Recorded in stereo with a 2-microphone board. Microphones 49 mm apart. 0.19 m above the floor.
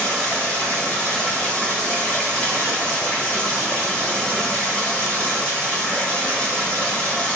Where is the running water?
25° left (ahead or behind), 0.8 m.